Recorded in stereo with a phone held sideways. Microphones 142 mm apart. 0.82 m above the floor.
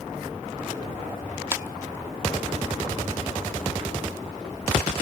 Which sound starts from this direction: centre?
A clap, at 1.5 s.